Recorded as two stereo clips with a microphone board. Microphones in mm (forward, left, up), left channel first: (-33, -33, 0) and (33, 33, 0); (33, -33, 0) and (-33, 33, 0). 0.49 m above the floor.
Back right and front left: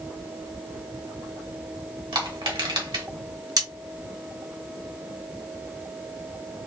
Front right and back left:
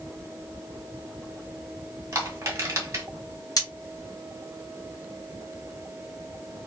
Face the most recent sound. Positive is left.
turn(degrees=0)